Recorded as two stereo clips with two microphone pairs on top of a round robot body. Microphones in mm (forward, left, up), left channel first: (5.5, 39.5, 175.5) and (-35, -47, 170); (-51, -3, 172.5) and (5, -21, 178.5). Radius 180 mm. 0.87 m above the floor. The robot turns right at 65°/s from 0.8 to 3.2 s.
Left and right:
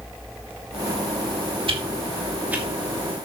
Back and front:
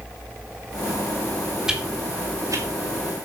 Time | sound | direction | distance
1.7 | a whoosh | 100° right | 3.5 m